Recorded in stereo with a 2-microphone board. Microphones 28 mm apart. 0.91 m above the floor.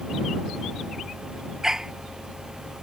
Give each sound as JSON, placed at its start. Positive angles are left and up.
{"t": 1.6, "sound": "a dog barking", "side_deg": -15}